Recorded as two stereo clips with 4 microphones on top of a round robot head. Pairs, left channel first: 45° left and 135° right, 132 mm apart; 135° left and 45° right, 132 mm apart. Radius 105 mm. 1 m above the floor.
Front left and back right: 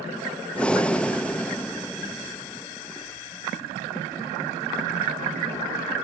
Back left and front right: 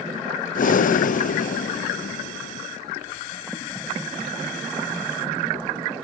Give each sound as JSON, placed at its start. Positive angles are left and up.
{"t": 0.6, "sound": "breathing", "azimuth_deg": 130, "distance_m": 0.7}